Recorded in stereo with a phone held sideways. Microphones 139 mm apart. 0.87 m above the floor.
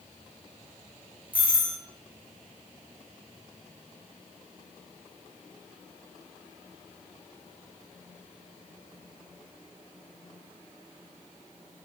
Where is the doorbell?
10° right (ahead or behind), 0.7 m.